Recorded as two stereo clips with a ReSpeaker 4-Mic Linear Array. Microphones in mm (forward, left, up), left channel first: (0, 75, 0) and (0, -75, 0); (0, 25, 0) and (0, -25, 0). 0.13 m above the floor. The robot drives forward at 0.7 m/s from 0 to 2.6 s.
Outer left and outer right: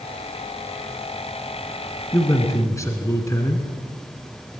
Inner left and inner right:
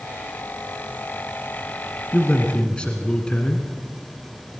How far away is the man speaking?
About 1.8 m.